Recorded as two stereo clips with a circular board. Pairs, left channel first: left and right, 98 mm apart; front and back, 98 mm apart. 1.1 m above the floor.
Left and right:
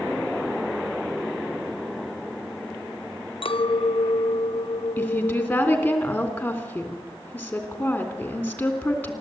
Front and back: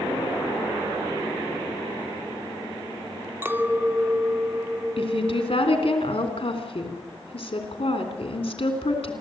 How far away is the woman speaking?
About 3.5 m.